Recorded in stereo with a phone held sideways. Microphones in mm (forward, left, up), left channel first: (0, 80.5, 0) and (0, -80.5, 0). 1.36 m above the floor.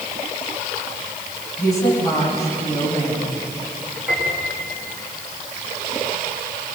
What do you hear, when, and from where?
1.6 s a woman speaking: 20° left (ahead or behind), 9 m
4.1 s a piano: 10° right (ahead or behind), 5.5 m